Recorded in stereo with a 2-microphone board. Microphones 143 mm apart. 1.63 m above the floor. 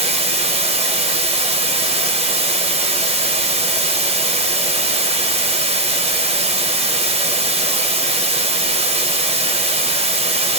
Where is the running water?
45° right (ahead or behind), 0.8 m.